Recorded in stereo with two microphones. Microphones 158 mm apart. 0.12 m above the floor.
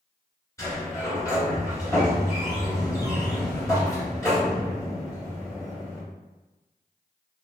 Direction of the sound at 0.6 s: 20° left (ahead or behind).